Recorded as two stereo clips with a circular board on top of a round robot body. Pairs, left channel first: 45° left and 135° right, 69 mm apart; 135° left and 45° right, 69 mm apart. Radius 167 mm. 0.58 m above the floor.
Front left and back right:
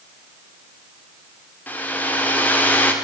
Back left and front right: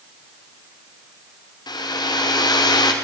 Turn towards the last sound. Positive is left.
turn(degrees=115)